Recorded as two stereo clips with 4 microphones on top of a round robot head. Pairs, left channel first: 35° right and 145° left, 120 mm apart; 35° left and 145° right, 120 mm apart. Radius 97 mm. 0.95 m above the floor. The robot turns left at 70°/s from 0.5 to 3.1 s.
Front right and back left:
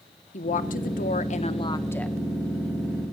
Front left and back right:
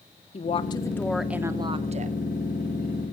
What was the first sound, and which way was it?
A woman speaking, 5° right.